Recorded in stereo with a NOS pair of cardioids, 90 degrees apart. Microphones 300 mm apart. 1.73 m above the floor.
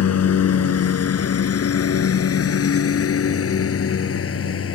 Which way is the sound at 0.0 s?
55° left.